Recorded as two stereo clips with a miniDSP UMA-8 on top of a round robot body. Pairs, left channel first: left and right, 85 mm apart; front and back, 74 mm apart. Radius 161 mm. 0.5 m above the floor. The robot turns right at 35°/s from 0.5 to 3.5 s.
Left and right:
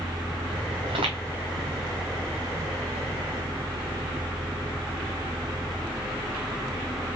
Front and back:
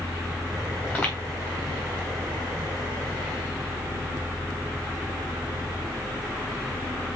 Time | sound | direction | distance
0.8 | footsteps | 85° right | 3 m